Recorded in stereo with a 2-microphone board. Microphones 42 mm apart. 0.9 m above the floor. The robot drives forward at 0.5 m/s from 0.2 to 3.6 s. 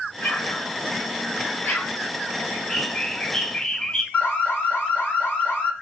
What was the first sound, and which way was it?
An explosion, 50° left (ahead or behind).